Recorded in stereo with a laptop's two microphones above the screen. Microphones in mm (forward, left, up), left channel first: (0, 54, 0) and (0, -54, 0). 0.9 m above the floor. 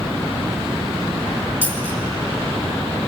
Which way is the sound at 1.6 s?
15° right (ahead or behind).